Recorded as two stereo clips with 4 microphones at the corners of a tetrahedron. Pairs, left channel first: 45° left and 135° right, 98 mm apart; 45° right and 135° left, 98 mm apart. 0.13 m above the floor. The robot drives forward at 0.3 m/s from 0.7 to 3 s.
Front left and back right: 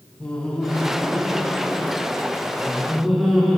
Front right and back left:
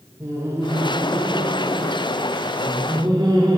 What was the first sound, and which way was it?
Laughter, 115° left.